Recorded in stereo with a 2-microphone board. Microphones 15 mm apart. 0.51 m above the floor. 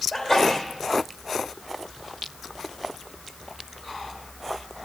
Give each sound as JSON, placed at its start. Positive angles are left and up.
{"t": 0.1, "sound": "a sneeze", "side_deg": 40, "distance_m": 1.9}